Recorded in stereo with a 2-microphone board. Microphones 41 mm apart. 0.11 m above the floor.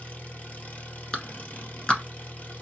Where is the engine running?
40° left (ahead or behind), 1.2 m.